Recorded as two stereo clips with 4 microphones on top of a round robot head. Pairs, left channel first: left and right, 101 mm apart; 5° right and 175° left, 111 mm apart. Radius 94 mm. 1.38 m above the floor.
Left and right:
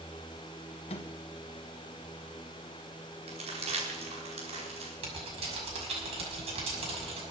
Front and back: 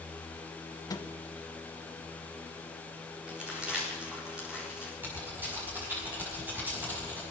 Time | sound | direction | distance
0.9 | a microwave | 50° left | 1.1 m
3.3 | crumpling | 105° right | 4.5 m
5.0 | typing on a keyboard | 110° right | 6 m